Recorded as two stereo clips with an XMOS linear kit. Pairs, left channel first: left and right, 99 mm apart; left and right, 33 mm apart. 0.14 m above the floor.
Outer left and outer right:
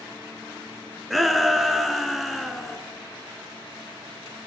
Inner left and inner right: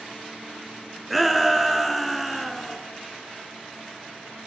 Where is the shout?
Centre (ahead or behind), 1.7 m.